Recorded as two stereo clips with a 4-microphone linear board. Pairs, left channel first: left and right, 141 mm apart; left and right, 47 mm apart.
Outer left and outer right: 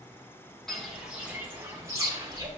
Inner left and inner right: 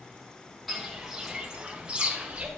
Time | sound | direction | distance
0.7 | footsteps | 5° left (ahead or behind) | 2 m